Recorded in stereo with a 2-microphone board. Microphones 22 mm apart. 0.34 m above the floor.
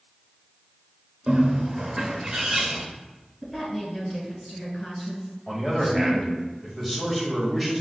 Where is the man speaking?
10° left (ahead or behind), 1.3 m.